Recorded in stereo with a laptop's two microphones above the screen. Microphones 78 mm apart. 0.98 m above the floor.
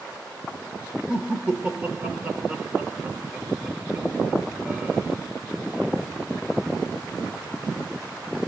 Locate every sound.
1.1 s laughter: 20° right (ahead or behind), 0.9 m